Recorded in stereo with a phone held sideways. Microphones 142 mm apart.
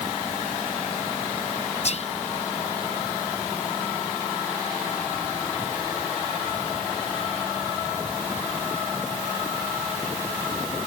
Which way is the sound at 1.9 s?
50° left (ahead or behind).